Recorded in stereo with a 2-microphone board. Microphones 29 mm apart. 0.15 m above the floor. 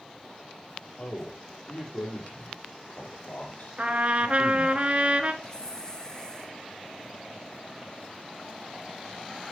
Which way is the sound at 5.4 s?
25° left (ahead or behind).